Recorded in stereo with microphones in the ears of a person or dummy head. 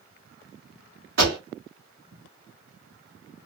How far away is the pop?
About 2.5 m.